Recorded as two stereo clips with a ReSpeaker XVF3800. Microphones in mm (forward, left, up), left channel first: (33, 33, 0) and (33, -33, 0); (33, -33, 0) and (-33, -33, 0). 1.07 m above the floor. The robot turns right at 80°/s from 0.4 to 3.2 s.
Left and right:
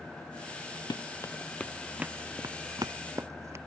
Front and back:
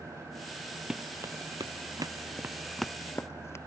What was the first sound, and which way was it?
Running footsteps, 100° left.